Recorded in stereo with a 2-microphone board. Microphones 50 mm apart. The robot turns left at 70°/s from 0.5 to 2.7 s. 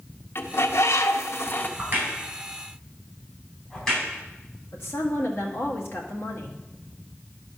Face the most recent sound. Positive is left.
turn(degrees=60)  # may be behind; listen again after turning